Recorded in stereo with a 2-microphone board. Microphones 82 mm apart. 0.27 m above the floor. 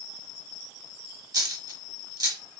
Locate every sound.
1.3 s a dropped coin: 45° right (ahead or behind), 0.7 m